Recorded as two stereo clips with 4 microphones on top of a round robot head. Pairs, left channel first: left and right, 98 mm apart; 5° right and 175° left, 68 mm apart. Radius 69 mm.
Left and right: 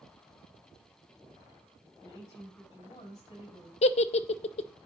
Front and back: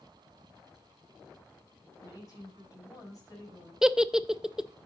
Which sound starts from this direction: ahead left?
A woman speaking, at 2.0 s.